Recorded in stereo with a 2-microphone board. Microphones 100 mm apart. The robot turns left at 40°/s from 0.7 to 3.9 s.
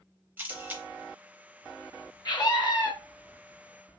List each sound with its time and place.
0.4 s a camera shutter: 20° right (ahead or behind), 0.7 m; by 0.8 s 15° right (ahead or behind), 0.7 m
2.2 s a scream: 40° left (ahead or behind), 1.2 m; by 2.9 s 45° left (ahead or behind), 1.2 m